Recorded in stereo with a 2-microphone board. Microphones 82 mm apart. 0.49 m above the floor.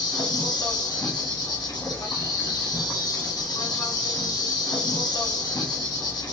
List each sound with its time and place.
0.0 s an insect: 60° left (ahead or behind), 1.1 m